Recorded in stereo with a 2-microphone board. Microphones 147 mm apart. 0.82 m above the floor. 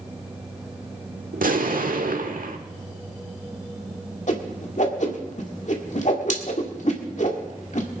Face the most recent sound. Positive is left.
turn(degrees=55)  # may be behind; listen again after turning